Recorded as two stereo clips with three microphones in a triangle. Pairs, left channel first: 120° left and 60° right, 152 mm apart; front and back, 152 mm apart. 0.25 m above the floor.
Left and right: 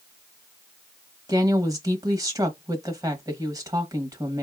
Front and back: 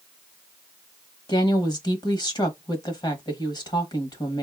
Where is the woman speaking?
20° right, 1.2 m.